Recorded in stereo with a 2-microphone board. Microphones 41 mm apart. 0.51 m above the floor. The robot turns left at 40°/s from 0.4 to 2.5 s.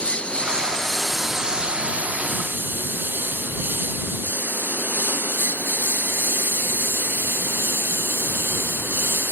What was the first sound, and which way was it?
A lawn mower, 30° left (ahead or behind).